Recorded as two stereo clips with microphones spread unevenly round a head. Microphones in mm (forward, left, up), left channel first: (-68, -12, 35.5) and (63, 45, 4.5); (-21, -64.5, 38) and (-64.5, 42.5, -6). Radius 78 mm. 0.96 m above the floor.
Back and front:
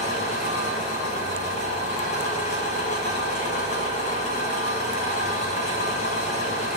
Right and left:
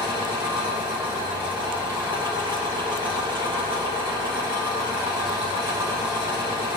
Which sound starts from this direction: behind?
An engine running, at 0.0 s.